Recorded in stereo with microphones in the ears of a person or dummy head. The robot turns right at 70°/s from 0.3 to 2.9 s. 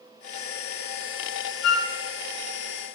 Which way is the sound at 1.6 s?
85° left.